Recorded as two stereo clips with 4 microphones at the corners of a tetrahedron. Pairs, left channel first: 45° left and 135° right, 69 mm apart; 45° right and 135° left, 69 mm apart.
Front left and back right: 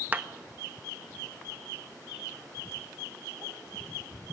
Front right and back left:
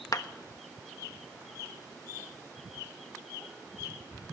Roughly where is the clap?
Right.